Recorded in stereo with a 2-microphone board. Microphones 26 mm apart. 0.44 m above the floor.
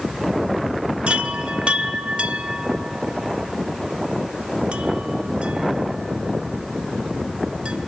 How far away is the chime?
About 1.1 m.